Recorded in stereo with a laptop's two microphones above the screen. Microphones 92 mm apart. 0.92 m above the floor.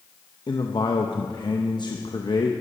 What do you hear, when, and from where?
0.5 s a man speaking: 55° left (ahead or behind), 0.7 m